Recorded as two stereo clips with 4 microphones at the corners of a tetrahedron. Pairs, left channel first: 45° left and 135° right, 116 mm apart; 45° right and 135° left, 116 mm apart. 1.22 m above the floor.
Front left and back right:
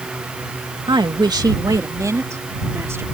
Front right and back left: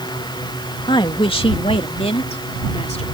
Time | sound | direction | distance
0.9 | a woman speaking | 90° right | ?